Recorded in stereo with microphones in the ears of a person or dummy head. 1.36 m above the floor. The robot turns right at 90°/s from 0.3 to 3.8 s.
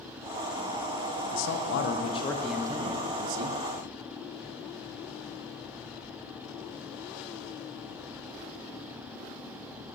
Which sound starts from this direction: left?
A man speaking, at 1.3 s.